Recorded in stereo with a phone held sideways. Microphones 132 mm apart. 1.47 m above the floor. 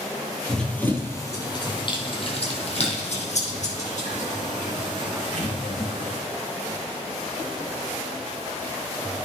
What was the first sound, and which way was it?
Running footsteps, 5° left (ahead or behind).